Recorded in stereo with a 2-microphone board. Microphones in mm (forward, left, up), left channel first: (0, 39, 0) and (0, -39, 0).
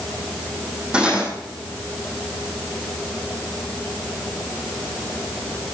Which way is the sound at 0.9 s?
10° right (ahead or behind).